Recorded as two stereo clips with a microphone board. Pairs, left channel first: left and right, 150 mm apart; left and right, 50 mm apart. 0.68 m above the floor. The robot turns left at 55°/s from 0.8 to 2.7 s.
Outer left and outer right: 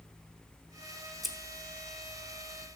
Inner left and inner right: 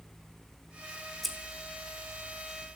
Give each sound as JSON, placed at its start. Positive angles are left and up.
{"t": 1.2, "sound": "scissors", "side_deg": 0, "distance_m": 0.9}